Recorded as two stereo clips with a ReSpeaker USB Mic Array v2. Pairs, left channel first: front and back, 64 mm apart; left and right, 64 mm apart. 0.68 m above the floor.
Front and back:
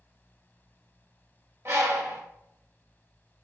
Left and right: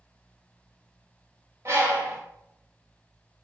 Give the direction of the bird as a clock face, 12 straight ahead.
4 o'clock.